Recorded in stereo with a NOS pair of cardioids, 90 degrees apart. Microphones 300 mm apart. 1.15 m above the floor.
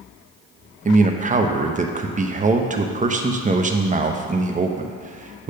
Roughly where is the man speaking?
Ahead right.